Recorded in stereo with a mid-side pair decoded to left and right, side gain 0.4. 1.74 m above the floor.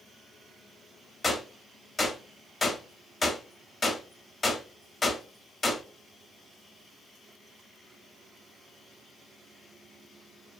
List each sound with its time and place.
1.2 s a gunshot: 35° left, 0.6 m